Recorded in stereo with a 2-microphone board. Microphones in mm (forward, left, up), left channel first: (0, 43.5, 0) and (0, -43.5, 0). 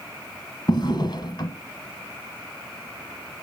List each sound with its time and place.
0.7 s a drawer: 60° left (ahead or behind), 1.3 m